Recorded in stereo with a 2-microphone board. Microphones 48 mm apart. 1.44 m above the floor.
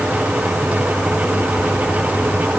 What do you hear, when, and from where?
Only background noise.